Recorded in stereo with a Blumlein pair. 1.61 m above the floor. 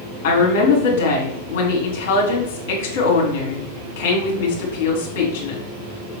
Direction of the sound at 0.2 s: 45° left.